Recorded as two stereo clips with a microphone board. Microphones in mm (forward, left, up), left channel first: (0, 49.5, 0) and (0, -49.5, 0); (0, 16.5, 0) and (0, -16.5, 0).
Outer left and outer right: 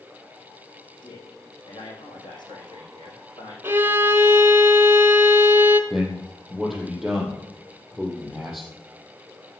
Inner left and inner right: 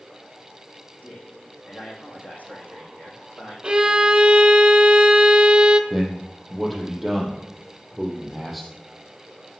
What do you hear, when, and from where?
1.0 s a man speaking: 50° left (ahead or behind), 4.5 m
3.6 s a violin: 20° right (ahead or behind), 0.8 m
5.9 s a man speaking: centre (ahead or behind), 4.5 m